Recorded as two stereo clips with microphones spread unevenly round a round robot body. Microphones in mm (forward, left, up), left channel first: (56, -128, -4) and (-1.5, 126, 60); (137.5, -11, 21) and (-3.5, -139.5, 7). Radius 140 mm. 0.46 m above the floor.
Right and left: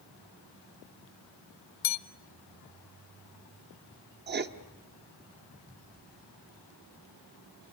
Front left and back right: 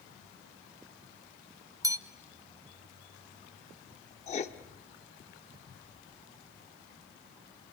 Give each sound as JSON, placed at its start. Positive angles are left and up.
{"t": 1.8, "sound": "a bell", "azimuth_deg": -65, "distance_m": 1.2}
{"t": 4.3, "sound": "writing", "azimuth_deg": 65, "distance_m": 1.1}